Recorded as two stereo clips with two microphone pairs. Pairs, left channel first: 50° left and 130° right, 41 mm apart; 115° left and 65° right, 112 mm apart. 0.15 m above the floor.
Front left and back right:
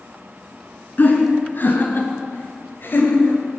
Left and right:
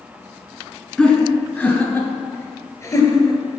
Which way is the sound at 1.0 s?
40° left.